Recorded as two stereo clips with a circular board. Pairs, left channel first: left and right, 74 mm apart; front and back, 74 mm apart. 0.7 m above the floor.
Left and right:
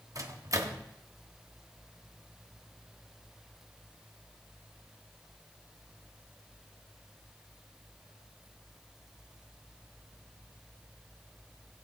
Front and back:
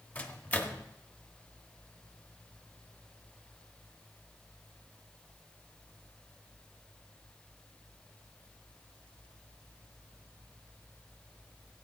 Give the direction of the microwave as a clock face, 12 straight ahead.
2 o'clock.